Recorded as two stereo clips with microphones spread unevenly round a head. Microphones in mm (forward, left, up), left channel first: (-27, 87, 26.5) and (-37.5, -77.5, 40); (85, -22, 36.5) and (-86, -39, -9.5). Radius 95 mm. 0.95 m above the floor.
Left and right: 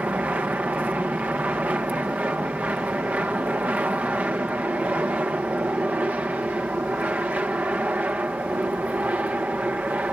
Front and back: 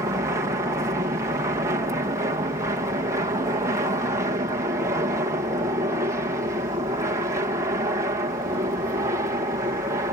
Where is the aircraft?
175° right.